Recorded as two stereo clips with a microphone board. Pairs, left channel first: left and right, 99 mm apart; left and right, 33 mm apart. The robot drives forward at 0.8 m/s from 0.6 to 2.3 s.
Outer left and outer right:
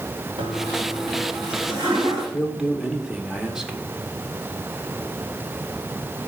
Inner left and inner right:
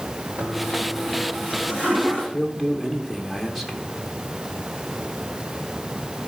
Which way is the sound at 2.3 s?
5° right (ahead or behind).